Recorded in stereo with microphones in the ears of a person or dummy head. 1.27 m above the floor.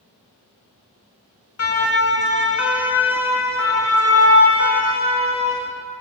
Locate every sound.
1.6 s a siren: 70° left (ahead or behind), 2.5 m; by 5.7 s 60° left (ahead or behind), 4.5 m